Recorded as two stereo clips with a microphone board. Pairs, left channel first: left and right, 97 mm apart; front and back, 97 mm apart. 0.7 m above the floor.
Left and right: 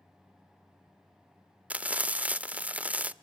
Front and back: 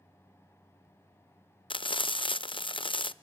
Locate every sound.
1.7 s frying: 15° right, 0.5 m